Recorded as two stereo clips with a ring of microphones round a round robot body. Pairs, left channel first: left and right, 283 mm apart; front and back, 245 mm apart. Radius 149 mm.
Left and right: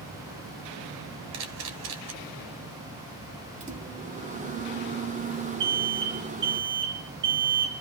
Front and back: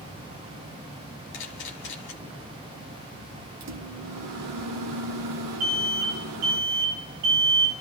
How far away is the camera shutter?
About 1.3 m.